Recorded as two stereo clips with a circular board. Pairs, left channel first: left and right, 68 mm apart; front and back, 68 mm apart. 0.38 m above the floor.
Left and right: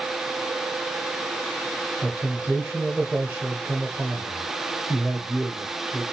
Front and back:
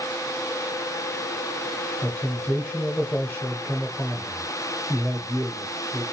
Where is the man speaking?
40° right, 0.8 m.